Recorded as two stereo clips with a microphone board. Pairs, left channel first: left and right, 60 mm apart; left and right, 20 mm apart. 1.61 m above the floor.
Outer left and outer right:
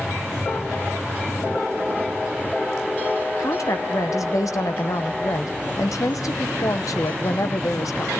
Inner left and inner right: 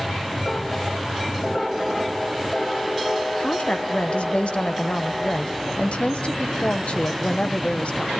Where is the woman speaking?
65° left (ahead or behind), 1.0 m.